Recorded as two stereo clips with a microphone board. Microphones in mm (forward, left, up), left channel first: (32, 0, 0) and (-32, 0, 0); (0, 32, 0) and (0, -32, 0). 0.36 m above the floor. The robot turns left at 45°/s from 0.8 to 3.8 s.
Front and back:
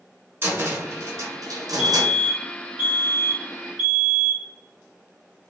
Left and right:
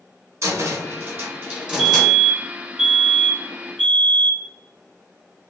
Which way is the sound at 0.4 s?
125° right.